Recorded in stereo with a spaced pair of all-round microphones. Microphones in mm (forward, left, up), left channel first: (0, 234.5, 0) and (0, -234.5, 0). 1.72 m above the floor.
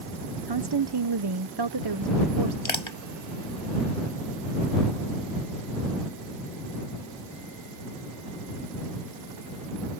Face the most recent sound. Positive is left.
turn(degrees=75)  # may be behind; listen again after turning